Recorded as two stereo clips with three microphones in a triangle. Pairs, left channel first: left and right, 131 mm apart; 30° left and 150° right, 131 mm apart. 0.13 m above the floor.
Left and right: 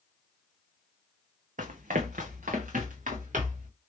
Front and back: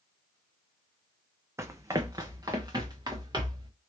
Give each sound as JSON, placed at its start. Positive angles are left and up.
{"t": 1.6, "sound": "running footsteps", "azimuth_deg": -80, "distance_m": 0.6}